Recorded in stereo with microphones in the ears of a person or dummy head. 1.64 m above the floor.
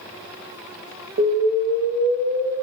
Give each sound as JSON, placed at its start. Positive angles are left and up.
{"t": 1.2, "sound": "an explosion", "side_deg": -75, "distance_m": 0.5}